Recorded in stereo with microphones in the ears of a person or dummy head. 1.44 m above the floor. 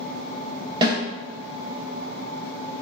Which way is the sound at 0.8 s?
20° right (ahead or behind).